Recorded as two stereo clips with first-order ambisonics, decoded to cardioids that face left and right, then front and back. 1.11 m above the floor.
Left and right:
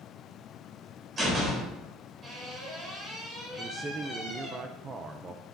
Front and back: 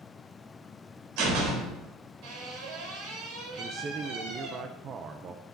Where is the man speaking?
145° right, 0.6 m.